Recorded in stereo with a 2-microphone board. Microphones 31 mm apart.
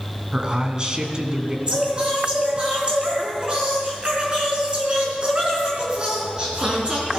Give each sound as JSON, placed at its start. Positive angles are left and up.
{"t": 0.3, "sound": "a man speaking", "side_deg": -30, "distance_m": 2.5}
{"t": 1.7, "sound": "singing", "side_deg": -35, "distance_m": 4.0}